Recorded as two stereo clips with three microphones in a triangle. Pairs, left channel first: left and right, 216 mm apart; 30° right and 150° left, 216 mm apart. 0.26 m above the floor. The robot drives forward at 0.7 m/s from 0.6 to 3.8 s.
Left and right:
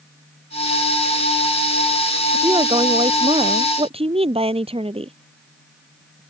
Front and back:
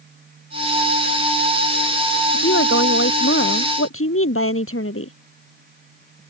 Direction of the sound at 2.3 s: 25° right.